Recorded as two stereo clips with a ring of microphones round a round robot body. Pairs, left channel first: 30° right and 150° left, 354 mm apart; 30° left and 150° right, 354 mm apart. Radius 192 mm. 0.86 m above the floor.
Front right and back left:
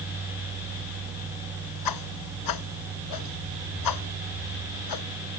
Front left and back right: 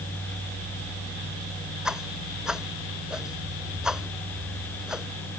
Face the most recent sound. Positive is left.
turn(degrees=-60)